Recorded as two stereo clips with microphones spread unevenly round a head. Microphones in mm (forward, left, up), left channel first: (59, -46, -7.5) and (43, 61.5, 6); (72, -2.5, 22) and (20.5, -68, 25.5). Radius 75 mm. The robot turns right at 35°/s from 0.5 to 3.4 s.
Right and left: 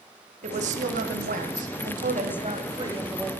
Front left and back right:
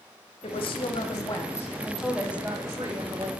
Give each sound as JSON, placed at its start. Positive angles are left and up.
{"t": 0.4, "sound": "a woman speaking", "azimuth_deg": 85, "distance_m": 1.1}